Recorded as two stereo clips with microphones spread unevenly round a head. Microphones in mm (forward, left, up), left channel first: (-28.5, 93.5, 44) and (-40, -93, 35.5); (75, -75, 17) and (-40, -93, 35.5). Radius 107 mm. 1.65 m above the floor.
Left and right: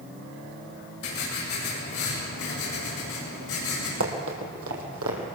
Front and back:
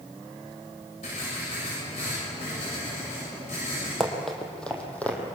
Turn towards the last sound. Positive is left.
turn(degrees=-70)